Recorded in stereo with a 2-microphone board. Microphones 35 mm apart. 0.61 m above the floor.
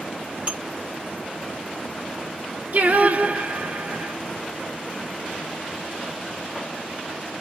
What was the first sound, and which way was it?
Dishes clattering, 35° right (ahead or behind).